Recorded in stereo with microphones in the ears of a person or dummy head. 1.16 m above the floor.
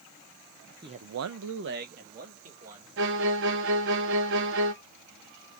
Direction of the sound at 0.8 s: 20° right (ahead or behind).